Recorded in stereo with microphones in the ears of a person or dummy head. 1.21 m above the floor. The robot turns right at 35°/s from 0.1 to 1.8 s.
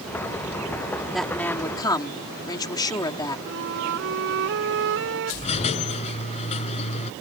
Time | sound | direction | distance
1.1 | a woman speaking | centre (ahead or behind) | ?
3.5 | a flute | 70° right (ahead or behind) | ?
5.4 | a squeak | 35° left (ahead or behind) | ?